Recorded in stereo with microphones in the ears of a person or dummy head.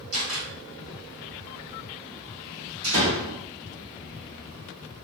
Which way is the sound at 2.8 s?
75° right (ahead or behind).